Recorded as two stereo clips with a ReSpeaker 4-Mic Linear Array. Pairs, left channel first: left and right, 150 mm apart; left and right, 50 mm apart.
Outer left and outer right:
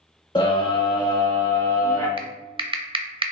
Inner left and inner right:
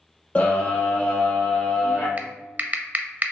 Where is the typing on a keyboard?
35° right (ahead or behind), 0.6 m.